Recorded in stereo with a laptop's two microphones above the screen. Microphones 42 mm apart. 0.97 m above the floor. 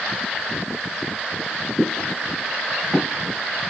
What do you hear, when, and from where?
1.8 s footsteps: 15° right (ahead or behind), 3.5 m; by 3.4 s 25° right (ahead or behind), 4 m